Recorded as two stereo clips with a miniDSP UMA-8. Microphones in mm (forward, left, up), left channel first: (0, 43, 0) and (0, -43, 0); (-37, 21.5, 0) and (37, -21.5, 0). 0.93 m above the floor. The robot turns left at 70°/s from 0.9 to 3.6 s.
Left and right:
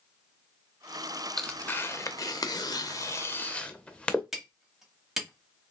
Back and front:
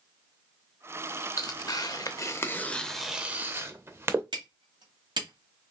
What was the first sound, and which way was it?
Tearing paper, 175° left.